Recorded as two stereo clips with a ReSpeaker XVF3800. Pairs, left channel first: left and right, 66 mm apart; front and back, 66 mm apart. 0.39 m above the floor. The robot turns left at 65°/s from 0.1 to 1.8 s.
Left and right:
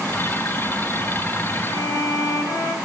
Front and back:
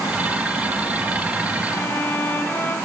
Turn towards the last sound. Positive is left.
turn(degrees=65)